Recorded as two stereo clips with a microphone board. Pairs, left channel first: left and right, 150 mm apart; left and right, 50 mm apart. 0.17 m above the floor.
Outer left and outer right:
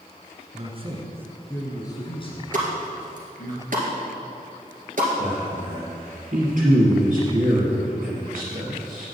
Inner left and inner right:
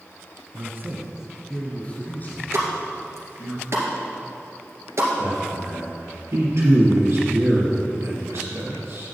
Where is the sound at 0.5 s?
50° right (ahead or behind), 1.9 m; by 3.5 s 60° left (ahead or behind), 4 m.